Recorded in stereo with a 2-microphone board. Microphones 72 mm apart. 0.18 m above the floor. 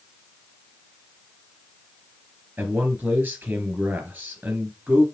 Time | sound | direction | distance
2.6 | a man speaking | 25° right (ahead or behind) | 3.5 m